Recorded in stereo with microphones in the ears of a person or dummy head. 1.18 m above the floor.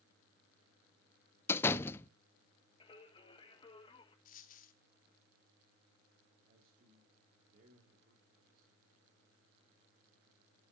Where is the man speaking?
45° right (ahead or behind), 2.5 m.